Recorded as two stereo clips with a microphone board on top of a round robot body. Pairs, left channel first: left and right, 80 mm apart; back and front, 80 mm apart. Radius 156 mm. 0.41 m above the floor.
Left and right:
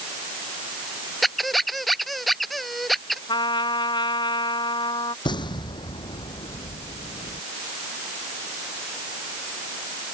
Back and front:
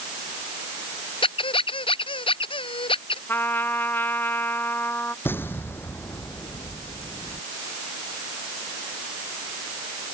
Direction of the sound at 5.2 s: 115° left.